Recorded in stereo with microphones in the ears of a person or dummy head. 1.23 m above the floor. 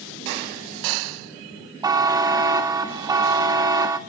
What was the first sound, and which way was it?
A buzzer, 20° right (ahead or behind).